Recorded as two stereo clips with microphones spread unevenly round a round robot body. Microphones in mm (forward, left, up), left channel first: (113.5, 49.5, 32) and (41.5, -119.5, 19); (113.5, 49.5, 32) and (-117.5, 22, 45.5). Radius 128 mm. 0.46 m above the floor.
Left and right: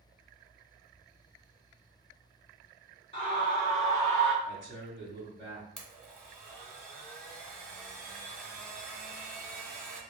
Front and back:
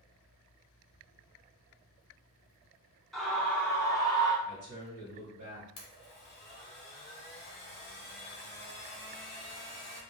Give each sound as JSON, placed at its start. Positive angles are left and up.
{"t": 3.1, "sound": "a scream", "azimuth_deg": 90, "distance_m": 1.0}
{"t": 4.5, "sound": "a man speaking", "azimuth_deg": 180, "distance_m": 1.8}
{"t": 5.8, "sound": "a blender", "azimuth_deg": -20, "distance_m": 1.1}